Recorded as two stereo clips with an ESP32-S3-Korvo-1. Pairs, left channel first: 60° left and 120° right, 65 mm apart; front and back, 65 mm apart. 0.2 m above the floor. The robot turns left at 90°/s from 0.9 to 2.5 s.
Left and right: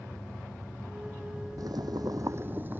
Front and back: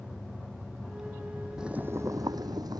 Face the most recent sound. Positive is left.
turn(degrees=180)